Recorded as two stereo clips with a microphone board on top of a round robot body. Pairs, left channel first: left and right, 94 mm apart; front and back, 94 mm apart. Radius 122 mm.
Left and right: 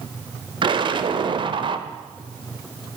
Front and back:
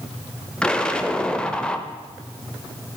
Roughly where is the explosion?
Right.